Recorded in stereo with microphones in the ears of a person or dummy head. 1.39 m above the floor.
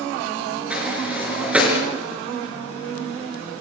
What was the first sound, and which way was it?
A sliding door, 10° right (ahead or behind).